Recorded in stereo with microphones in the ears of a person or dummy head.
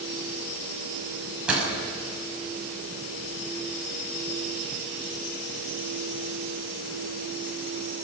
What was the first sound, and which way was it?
A door slam, centre (ahead or behind).